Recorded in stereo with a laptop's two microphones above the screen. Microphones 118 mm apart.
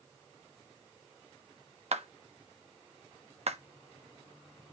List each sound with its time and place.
1.9 s a clap: 65° right (ahead or behind), 1.2 m